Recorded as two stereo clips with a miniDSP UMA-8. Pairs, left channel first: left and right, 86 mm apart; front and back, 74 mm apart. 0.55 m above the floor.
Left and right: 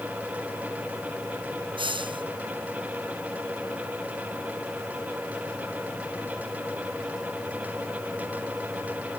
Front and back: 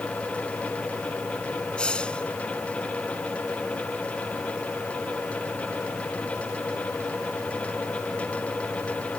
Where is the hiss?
75° right.